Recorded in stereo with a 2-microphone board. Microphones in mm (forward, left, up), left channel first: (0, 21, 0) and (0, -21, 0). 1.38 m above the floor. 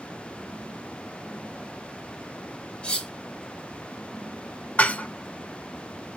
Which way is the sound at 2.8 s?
25° left (ahead or behind).